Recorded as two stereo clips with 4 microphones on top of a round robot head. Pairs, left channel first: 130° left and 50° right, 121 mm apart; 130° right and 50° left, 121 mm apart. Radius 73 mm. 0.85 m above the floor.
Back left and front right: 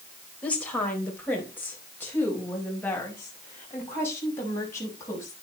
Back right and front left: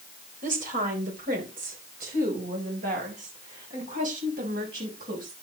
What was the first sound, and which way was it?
A woman speaking, 50° left.